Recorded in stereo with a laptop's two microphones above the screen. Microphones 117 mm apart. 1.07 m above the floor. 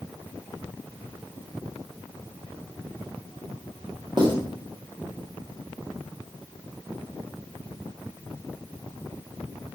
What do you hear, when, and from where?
4.2 s writing: 40° right (ahead or behind), 0.8 m